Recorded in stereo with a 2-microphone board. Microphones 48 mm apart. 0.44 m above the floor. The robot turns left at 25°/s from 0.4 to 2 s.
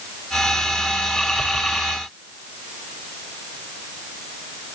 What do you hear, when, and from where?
Only background noise.